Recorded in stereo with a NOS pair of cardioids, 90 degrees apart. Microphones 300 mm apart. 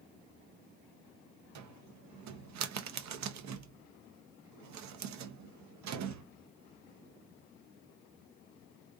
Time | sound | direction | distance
1.6 | a cupboard door | 70° right | 0.7 m